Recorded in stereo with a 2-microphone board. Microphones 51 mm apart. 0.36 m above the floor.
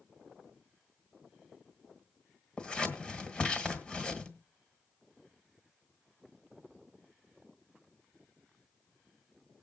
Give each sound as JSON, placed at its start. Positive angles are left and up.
{"t": 2.6, "sound": "scissors", "side_deg": 25, "distance_m": 1.6}